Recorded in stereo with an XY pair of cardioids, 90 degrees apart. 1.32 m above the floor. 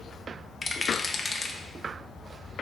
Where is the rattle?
20° left, 1.0 m.